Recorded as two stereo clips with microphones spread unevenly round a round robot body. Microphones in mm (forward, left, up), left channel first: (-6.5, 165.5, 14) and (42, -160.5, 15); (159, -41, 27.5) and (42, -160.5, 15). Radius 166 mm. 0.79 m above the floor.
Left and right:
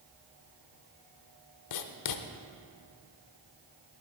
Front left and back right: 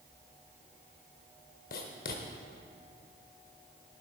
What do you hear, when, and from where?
1.7 s writing: 75° left, 0.7 m